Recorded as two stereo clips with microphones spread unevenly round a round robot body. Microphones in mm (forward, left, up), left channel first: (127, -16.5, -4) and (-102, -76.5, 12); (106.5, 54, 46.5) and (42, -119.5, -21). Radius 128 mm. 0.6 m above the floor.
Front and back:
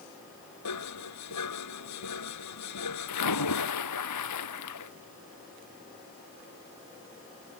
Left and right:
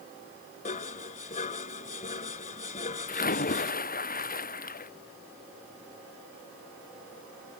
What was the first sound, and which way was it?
Dishes clattering, 25° left.